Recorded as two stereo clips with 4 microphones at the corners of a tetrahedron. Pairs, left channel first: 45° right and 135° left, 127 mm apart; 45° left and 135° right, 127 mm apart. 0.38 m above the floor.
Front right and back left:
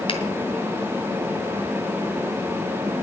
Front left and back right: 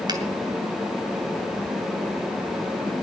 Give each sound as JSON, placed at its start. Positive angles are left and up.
{"t": 0.1, "sound": "a finger snap", "azimuth_deg": -85, "distance_m": 2.5}